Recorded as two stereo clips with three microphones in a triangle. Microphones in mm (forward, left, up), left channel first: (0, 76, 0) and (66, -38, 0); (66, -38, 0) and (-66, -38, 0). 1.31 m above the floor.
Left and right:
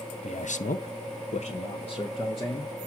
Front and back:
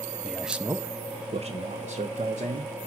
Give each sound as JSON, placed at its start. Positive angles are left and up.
{"t": 0.2, "sound": "a man speaking", "azimuth_deg": 85, "distance_m": 0.6}